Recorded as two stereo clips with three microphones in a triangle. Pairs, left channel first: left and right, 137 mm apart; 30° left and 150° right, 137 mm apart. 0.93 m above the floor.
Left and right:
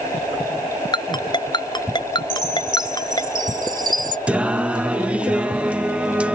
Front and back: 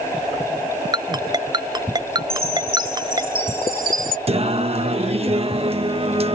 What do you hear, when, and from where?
0.9 s a ringtone: 150° left
2.3 s a chime: 150° right
4.3 s singing: 170° right